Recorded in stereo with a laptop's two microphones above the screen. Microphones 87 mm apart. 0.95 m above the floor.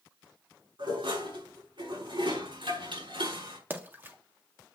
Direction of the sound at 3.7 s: 25° right (ahead or behind).